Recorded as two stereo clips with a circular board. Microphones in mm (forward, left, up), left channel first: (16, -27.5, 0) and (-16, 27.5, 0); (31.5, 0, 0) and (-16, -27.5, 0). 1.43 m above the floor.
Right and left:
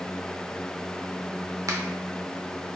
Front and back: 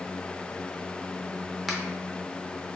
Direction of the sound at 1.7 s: 120° left.